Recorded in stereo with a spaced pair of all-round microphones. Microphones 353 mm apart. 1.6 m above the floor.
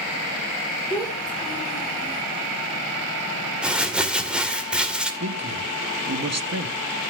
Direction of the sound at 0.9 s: 10° left (ahead or behind).